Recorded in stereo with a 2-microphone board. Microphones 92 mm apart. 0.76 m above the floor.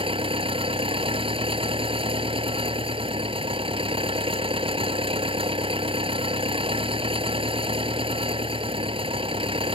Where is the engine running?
75° right (ahead or behind).